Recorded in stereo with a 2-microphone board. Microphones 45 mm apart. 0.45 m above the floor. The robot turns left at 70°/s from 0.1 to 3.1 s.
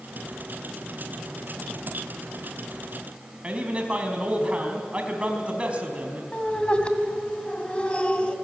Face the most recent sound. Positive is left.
turn(degrees=25)  # may be behind; listen again after turning